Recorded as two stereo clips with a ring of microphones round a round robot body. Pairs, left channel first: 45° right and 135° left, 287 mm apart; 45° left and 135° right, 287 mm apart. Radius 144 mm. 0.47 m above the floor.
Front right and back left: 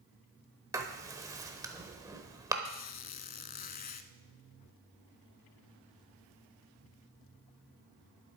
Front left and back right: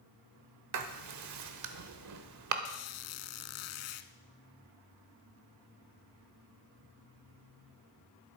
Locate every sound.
0.7 s writing: 150° right, 1.2 m
2.6 s a squeak: 10° left, 0.7 m